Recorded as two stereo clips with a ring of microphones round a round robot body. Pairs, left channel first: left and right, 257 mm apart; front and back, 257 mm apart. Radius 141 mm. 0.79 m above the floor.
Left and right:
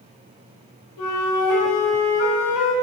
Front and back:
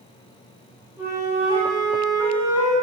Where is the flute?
100° left, 1.8 m.